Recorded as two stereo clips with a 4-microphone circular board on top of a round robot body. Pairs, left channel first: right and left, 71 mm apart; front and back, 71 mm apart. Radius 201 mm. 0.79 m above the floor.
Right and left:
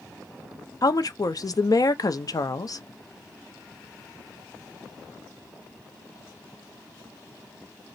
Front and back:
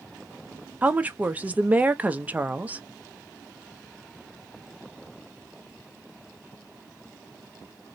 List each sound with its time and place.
0.8 s a woman speaking: 110° right, 0.7 m